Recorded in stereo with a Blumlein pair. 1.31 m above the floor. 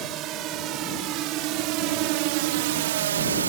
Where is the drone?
35° right; by 3.5 s 75° right.